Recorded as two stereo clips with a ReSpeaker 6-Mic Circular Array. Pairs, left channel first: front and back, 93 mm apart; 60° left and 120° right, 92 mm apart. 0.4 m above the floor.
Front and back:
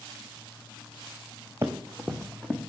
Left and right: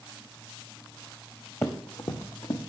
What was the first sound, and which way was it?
Running footsteps, 120° left.